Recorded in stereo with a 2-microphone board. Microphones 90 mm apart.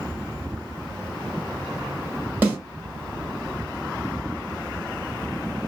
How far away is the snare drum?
About 1.3 m.